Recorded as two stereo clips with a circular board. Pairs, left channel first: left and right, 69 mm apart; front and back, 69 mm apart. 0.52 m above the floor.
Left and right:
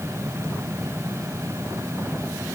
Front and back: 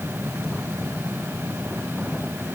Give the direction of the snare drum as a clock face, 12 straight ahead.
I don't hear a snare drum.